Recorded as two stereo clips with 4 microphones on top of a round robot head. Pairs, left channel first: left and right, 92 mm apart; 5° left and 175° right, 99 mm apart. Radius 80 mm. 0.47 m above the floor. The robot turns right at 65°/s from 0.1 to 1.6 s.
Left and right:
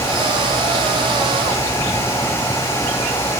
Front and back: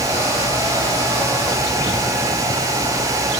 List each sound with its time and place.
Only background noise.